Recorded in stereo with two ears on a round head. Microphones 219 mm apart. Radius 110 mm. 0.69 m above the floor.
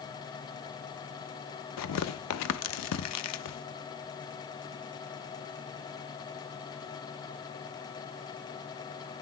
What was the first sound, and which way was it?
Tearing paper, 70° left (ahead or behind).